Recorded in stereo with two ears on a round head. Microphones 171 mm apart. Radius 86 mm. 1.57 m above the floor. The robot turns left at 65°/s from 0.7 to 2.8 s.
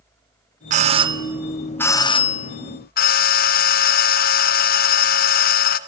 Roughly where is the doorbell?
Behind right.